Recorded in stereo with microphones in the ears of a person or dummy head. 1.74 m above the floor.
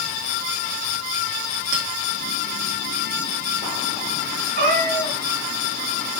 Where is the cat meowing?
55° right (ahead or behind), 2.5 m.